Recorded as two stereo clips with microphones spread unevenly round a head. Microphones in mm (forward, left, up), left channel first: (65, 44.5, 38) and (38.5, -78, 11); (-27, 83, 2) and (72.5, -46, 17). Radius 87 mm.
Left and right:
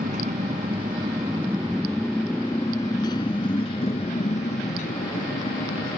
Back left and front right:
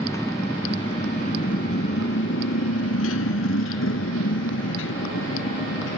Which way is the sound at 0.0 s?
150° right.